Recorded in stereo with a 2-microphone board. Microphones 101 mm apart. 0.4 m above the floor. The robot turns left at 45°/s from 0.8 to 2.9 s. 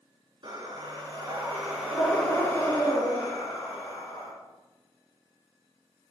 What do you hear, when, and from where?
0.4 s breathing: 130° right, 3.5 m; by 4.3 s 135° left, 3.5 m